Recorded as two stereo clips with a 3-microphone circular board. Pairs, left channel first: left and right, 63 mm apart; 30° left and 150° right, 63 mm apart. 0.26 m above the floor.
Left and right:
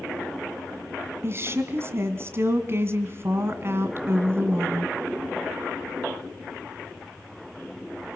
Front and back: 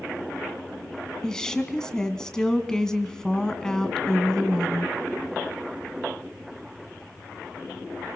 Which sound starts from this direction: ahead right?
A woman speaking, at 1.2 s.